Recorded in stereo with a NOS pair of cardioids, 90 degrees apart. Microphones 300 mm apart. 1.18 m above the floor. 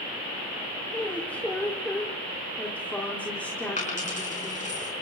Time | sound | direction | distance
0.9 | a woman speaking | 5° left | 4 m
3.8 | a dropped coin | 25° left | 6 m